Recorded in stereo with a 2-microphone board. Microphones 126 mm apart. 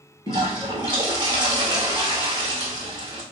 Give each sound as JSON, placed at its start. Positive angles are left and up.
{"t": 0.3, "sound": "a toilet flushing", "side_deg": -35, "distance_m": 1.1}